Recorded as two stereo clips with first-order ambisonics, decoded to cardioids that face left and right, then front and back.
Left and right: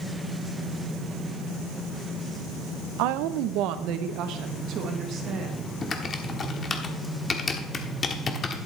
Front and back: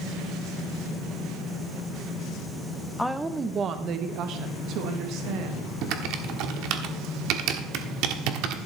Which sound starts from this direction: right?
A woman speaking, at 3.0 s.